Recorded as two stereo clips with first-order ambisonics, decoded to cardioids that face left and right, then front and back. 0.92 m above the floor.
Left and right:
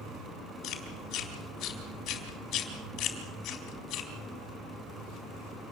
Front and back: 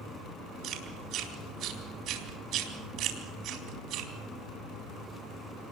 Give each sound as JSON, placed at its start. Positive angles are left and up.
{"t": 0.6, "sound": "chewing", "azimuth_deg": 135, "distance_m": 4.0}